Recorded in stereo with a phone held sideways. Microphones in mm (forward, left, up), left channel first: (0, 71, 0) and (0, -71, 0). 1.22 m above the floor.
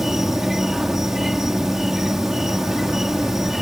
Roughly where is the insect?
Centre.